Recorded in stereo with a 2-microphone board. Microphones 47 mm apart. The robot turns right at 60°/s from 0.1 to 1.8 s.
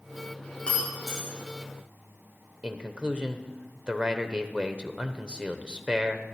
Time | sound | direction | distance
0.7 | breaking glass | 25° left (ahead or behind) | 5.5 m
2.6 | a man speaking | 20° right (ahead or behind) | 0.9 m